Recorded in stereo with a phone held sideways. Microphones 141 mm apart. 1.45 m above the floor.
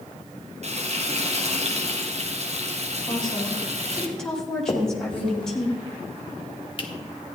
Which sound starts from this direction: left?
A finger snap, at 4.7 s.